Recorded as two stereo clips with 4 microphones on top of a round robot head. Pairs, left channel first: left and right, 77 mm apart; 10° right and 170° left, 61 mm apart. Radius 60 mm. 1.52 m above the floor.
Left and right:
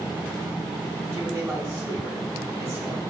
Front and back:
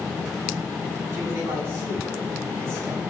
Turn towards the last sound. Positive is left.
turn(degrees=-145)